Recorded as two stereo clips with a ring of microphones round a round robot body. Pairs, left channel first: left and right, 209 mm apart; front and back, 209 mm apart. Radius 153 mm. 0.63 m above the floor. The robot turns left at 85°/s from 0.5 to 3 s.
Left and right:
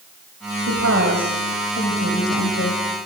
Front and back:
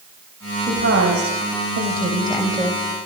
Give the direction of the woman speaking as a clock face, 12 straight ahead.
4 o'clock.